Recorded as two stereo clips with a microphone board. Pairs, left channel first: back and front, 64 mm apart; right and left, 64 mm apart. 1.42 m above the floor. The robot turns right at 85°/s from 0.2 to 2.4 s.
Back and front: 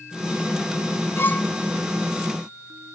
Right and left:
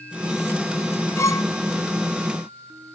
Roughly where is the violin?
Behind right.